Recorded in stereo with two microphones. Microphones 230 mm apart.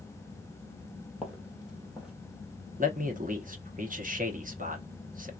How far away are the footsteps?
About 1.2 m.